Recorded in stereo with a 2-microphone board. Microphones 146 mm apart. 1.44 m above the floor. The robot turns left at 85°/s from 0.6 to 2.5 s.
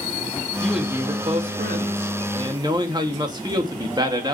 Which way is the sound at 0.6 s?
10° left.